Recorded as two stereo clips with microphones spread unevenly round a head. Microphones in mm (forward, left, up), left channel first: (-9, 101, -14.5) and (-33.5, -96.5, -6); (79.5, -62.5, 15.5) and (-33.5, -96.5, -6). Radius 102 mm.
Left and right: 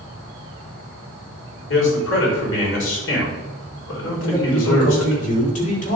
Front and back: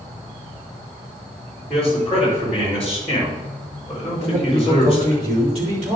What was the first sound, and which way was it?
A man speaking, 100° left.